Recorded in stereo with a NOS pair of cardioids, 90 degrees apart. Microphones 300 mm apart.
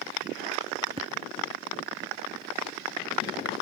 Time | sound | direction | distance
1.0 | tapping | 20° right | ?